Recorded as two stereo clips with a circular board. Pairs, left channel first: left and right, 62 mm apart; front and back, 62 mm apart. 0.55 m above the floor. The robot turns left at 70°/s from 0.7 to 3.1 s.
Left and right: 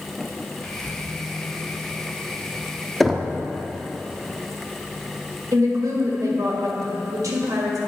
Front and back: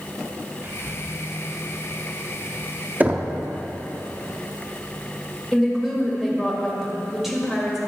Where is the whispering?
160° left, 0.8 m; by 1.0 s 135° left, 0.8 m.